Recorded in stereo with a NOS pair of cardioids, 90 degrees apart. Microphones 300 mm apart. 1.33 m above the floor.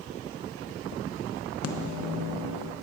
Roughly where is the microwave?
Ahead left.